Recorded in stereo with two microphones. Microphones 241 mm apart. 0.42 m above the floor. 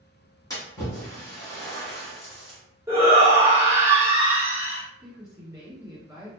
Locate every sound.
0.5 s a splash: 15° left (ahead or behind), 1.8 m
2.9 s a shout: 10° right (ahead or behind), 1.3 m
5.0 s a woman speaking: 15° right (ahead or behind), 2.0 m